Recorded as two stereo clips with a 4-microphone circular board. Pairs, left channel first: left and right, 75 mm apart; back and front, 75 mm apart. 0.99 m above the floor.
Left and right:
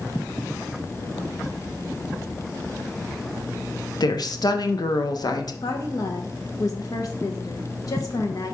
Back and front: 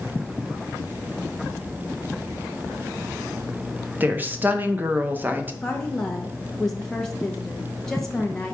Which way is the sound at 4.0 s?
65° left.